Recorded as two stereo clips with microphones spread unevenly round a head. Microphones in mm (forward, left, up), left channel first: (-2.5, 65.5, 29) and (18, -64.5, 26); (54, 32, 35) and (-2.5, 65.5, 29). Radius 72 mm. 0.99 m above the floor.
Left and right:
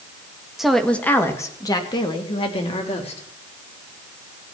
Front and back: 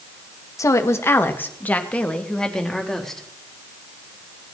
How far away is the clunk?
I don't hear a clunk.